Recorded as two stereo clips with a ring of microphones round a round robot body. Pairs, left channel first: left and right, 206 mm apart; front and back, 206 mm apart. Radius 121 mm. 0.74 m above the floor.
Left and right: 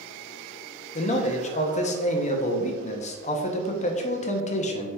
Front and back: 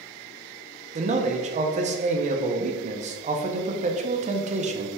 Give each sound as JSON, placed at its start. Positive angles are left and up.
{"t": 0.9, "sound": "a man speaking", "azimuth_deg": 135, "distance_m": 0.6}